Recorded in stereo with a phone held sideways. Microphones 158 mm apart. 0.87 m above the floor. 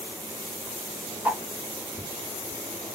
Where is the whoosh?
10° right (ahead or behind), 1.0 m.